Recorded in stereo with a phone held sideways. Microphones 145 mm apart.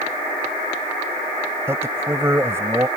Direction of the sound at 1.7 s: 15° right (ahead or behind).